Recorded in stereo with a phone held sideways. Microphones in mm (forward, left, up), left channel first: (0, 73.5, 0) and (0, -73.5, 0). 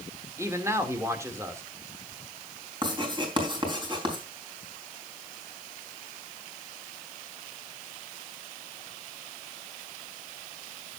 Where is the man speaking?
20° right (ahead or behind), 2.5 m.